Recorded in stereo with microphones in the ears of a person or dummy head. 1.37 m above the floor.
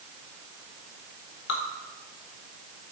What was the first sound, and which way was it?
Dripping, 65° left (ahead or behind).